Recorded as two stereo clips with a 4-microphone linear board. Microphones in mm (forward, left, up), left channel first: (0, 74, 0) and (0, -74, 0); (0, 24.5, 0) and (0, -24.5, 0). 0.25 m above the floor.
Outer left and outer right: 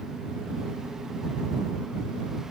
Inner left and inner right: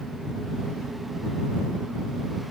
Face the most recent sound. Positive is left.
No sound to turn to.